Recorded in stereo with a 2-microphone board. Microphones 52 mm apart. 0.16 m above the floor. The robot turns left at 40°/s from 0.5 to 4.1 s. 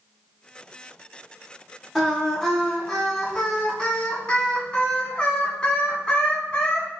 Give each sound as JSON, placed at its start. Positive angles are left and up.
{"t": 1.9, "sound": "singing", "side_deg": -5, "distance_m": 1.2}